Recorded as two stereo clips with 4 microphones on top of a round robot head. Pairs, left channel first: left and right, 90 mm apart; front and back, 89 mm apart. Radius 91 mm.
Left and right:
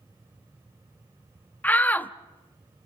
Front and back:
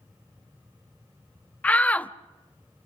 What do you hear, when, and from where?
1.6 s a shout: 50° left, 0.8 m